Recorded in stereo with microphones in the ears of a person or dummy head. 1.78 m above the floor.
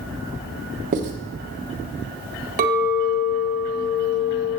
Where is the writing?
40° right (ahead or behind), 1.2 m.